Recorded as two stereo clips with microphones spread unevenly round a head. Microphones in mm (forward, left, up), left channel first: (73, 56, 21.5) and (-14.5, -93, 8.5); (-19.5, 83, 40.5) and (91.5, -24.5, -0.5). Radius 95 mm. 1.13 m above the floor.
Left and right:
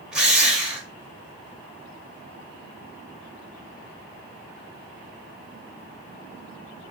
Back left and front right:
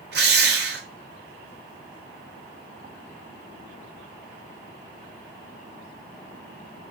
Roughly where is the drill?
Ahead right.